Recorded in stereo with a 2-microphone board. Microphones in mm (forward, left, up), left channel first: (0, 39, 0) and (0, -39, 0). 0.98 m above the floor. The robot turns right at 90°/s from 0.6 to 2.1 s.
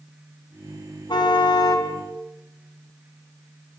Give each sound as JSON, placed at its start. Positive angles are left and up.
{"t": 1.1, "sound": "a car horn", "azimuth_deg": 65, "distance_m": 4.5}